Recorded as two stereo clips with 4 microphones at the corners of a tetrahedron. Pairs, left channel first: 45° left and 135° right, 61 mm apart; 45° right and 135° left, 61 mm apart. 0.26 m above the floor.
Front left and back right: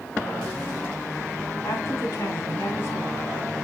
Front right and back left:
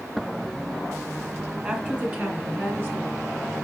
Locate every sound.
1.6 s a woman speaking: 70° left, 2 m; by 3.2 s 90° left, 3 m